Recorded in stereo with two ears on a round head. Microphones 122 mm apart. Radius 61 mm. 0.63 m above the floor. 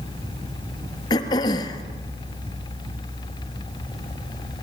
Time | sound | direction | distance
1.1 | throat clearing | 30° left (ahead or behind) | 2.5 m